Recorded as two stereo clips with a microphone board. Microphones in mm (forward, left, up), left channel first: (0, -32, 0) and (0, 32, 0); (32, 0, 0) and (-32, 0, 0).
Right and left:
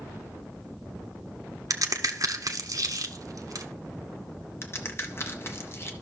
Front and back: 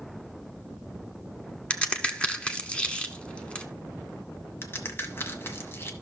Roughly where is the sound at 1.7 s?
Left.